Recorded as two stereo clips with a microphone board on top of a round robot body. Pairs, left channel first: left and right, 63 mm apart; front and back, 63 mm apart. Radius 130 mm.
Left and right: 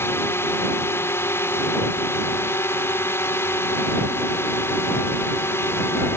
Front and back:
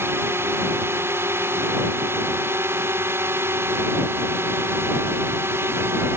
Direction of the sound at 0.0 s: 135° left.